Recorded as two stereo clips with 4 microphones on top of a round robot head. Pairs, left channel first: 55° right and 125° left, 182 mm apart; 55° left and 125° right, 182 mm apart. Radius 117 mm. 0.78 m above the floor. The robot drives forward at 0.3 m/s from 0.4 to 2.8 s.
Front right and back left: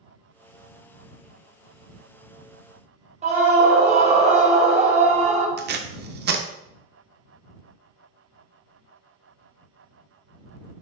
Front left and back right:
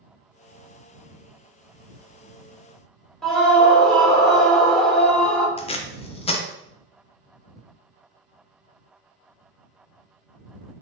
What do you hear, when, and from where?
3.2 s a scream: 135° left, 0.9 m
5.6 s tape being pulled: 110° left, 0.5 m